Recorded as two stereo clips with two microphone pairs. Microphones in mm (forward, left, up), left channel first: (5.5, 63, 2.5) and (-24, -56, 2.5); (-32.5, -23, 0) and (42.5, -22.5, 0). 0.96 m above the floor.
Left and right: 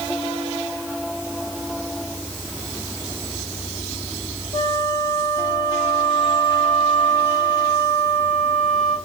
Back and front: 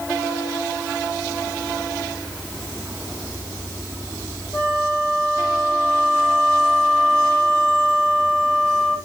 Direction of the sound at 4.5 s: 115° left.